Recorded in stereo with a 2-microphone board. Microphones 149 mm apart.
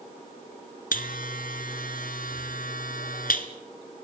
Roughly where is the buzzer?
Left.